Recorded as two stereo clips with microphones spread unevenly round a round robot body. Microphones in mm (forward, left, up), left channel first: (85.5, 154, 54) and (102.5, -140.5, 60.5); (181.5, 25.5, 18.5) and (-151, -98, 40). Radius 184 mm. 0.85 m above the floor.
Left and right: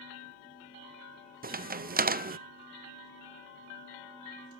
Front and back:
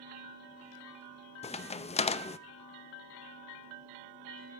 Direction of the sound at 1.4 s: 40° right.